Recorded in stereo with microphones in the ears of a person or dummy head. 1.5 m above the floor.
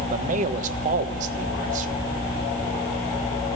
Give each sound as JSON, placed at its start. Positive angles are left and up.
{"t": 0.1, "sound": "a man speaking", "side_deg": -45, "distance_m": 1.3}